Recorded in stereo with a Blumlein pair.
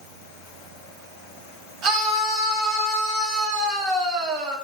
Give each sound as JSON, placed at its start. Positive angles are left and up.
{"t": 1.8, "sound": "a scream", "azimuth_deg": -35, "distance_m": 3.5}